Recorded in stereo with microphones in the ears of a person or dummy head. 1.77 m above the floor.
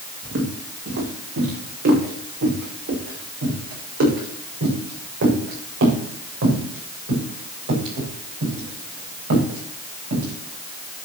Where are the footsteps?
60° right (ahead or behind), 5 m; by 10.3 s 70° right (ahead or behind), 10.5 m.